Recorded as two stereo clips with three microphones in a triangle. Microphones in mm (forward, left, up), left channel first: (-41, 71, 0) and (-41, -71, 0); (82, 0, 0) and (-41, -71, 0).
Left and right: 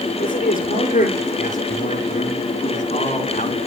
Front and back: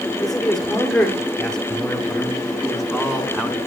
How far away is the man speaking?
About 6.5 m.